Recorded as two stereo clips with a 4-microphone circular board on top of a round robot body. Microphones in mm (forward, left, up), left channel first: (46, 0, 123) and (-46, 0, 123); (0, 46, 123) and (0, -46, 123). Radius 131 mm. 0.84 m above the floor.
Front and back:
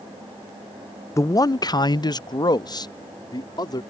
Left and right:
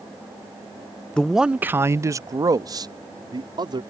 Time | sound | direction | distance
1.2 | a man speaking | 20° left | ?